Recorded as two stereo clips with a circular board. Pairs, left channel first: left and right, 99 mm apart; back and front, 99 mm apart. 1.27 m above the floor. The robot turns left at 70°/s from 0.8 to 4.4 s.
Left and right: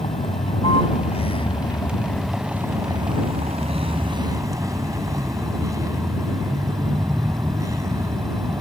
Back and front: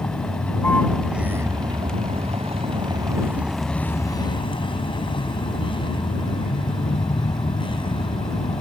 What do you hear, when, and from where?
0.0 s a vehicle: 105° left; by 8.6 s 145° right